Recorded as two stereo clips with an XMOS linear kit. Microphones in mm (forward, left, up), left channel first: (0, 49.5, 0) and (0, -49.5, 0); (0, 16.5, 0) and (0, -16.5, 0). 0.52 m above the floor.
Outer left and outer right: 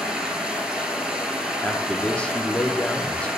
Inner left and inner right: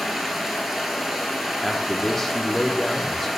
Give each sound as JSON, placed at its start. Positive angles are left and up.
{"t": 0.0, "sound": "running water", "side_deg": -5, "distance_m": 1.1}
{"t": 1.6, "sound": "a man speaking", "side_deg": 10, "distance_m": 0.7}